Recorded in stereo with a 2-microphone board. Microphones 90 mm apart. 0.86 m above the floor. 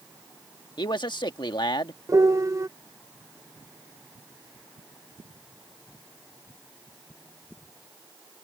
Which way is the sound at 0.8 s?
60° left (ahead or behind).